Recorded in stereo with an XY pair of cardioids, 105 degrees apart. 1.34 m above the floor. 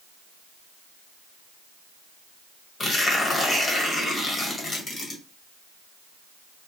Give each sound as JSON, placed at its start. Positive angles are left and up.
{"t": 2.8, "sound": "tearing paper", "azimuth_deg": 30, "distance_m": 1.2}